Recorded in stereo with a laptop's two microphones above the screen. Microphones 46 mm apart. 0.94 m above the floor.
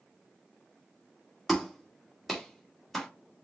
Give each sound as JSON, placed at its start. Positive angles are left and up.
{"t": 1.5, "sound": "a clap", "side_deg": 0, "distance_m": 1.6}